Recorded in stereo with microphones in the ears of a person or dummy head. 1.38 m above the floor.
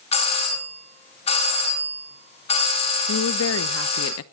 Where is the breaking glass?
I don't hear breaking glass.